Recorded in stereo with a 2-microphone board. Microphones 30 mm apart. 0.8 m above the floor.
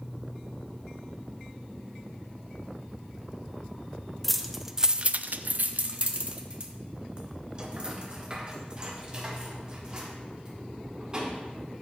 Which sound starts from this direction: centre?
Keys jangling, at 4.2 s.